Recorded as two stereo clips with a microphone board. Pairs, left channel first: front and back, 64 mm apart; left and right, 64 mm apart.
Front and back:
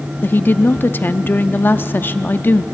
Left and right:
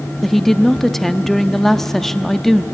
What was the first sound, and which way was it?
A woman speaking, 10° left.